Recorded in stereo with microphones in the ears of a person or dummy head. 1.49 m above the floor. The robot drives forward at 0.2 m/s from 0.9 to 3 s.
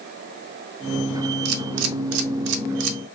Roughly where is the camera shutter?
Right.